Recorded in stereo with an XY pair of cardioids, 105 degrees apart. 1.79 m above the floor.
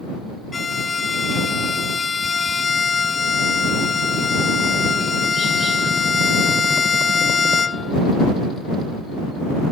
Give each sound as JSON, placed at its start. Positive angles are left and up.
{"t": 0.5, "sound": "a violin", "azimuth_deg": 35}